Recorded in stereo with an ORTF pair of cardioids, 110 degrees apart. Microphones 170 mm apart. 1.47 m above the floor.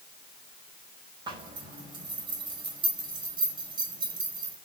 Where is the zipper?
25° right, 5.5 m.